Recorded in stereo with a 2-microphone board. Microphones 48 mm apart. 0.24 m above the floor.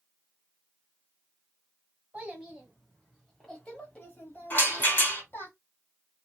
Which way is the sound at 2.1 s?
25° right (ahead or behind).